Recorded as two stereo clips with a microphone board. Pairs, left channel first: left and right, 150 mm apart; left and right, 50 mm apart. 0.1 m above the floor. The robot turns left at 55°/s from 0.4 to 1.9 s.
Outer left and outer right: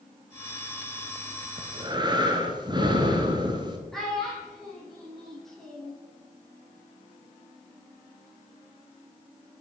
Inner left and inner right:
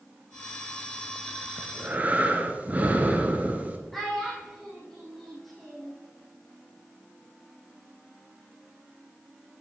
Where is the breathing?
35° right (ahead or behind), 1.0 m; by 3.8 s 30° right (ahead or behind), 1.0 m.